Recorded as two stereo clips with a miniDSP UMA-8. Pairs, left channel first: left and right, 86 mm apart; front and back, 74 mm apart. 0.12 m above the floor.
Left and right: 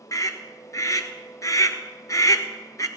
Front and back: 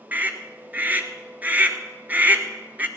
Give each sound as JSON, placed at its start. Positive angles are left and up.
{"t": 0.1, "sound": "a scream", "azimuth_deg": 120, "distance_m": 1.6}